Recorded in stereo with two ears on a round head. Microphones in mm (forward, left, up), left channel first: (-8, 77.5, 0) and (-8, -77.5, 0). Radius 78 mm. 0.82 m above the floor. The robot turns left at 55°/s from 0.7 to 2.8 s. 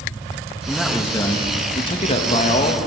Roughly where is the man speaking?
Behind.